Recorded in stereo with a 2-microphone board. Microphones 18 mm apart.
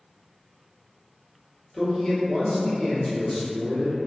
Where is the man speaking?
30° left (ahead or behind), 0.9 m.